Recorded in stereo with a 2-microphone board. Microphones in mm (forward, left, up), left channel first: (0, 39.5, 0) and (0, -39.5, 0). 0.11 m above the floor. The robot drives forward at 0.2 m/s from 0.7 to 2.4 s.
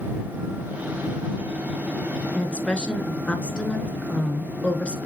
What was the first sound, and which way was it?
A woman speaking, 15° left (ahead or behind).